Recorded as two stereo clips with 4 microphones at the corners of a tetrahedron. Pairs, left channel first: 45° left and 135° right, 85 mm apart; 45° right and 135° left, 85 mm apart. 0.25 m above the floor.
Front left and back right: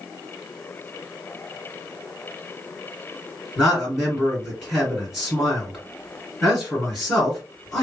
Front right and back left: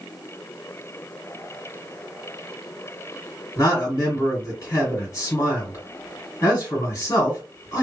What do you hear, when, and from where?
3.6 s a man speaking: 35° right, 2.0 m